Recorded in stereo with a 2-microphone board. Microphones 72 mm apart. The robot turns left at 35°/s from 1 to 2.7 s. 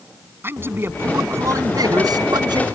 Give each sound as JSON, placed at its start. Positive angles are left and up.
{"t": 0.4, "sound": "a man speaking", "azimuth_deg": -30}